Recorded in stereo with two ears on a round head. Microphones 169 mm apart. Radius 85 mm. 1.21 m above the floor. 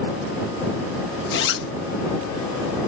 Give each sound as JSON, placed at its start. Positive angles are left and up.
{"t": 1.3, "sound": "a zipper", "side_deg": 60}